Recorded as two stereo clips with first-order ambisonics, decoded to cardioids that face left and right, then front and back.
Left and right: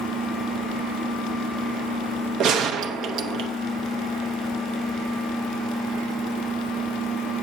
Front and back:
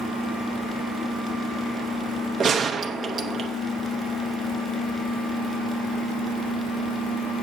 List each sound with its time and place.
2.4 s a gunshot: 115° right, 0.6 m